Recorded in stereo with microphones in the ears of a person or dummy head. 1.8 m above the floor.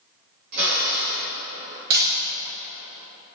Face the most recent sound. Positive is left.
turn(degrees=-50)  # may be behind; listen again after turning